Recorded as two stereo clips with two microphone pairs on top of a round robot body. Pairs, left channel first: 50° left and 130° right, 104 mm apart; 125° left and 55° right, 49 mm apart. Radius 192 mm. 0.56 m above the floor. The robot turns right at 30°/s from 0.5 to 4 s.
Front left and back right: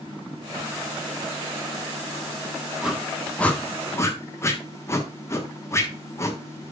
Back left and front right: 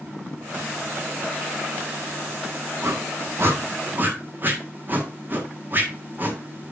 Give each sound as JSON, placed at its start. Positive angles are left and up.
{"t": 2.8, "sound": "a whoosh", "azimuth_deg": -45, "distance_m": 1.4}